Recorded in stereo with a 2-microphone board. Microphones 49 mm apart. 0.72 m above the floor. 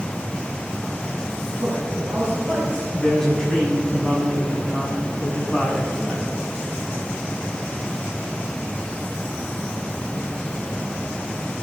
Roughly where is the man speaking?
Right.